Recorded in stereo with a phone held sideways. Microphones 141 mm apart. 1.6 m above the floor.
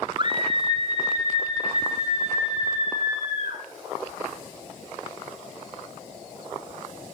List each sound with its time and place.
0.2 s a scream: 30° right (ahead or behind), 0.8 m; by 3.6 s 50° right (ahead or behind), 5 m